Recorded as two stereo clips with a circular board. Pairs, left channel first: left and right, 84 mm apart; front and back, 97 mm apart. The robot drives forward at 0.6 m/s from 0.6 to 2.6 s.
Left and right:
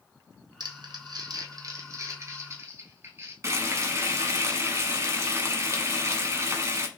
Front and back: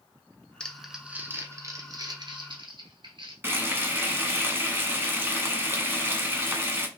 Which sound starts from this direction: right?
Crumpling, at 0.6 s.